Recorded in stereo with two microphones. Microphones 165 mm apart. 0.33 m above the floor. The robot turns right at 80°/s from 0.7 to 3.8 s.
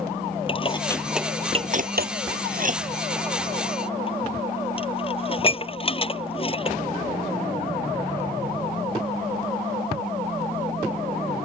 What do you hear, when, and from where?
0.5 s dishes clattering: 35° left (ahead or behind)